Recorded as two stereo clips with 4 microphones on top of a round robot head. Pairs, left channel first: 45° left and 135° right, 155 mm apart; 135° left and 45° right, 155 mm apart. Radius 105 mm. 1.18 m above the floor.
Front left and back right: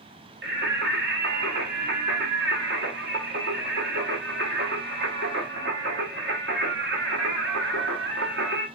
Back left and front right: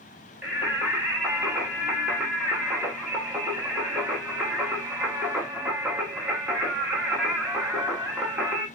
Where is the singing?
125° right, 0.7 m.